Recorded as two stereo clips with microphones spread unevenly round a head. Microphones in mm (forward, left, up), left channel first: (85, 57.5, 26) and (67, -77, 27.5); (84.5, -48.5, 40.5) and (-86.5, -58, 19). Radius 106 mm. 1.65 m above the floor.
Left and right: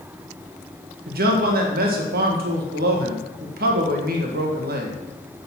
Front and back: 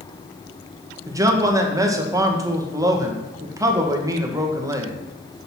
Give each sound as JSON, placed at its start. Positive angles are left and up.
{"t": 1.1, "sound": "a man speaking", "azimuth_deg": -105, "distance_m": 1.7}